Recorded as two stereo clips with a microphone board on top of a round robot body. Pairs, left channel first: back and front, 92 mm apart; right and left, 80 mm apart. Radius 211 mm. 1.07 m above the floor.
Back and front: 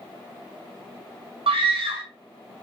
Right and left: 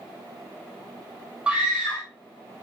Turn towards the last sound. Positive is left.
turn(degrees=10)